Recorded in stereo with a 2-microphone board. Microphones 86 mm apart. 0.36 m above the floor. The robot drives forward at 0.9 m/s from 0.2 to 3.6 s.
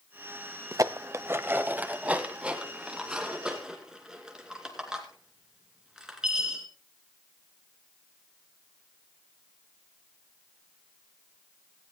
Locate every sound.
0.7 s dishes clattering: 40° right (ahead or behind), 0.6 m; by 6.7 s 10° right (ahead or behind), 2.5 m